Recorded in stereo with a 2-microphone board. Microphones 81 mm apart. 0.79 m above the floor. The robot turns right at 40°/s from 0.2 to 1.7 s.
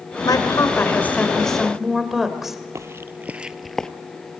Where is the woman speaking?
125° left, 2.5 m; by 2.6 s 175° right, 2.5 m.